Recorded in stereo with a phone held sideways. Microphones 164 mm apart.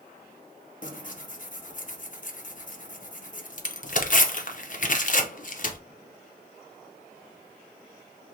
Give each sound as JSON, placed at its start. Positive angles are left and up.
{"t": 0.8, "sound": "tearing paper", "side_deg": 55, "distance_m": 0.5}